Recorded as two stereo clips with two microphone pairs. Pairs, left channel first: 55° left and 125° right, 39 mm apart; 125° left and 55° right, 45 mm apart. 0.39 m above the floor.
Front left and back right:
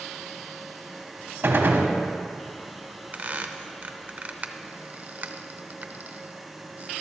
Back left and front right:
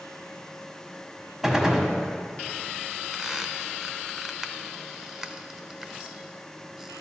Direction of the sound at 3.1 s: 130° right.